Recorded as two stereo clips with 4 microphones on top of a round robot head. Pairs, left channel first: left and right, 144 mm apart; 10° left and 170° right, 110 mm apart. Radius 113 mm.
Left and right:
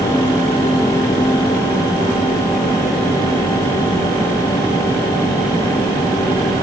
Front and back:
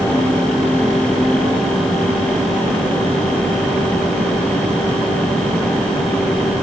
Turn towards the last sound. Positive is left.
No sound to turn to.